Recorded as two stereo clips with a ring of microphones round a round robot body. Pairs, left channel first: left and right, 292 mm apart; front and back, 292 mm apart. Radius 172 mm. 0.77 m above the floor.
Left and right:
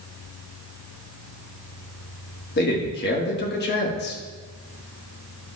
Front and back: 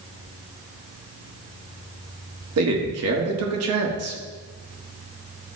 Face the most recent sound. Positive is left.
turn(degrees=145)